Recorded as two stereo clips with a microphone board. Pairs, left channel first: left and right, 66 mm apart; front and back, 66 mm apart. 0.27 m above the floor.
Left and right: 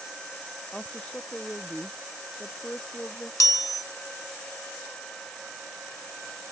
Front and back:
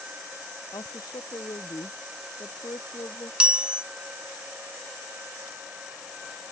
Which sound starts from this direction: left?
A chime, at 3.4 s.